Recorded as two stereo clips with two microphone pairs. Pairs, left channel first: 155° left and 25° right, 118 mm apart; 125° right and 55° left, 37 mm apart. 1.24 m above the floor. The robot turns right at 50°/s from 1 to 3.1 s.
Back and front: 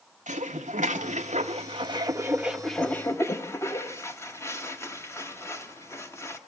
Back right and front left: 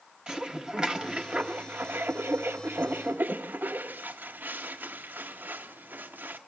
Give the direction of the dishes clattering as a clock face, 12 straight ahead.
1 o'clock.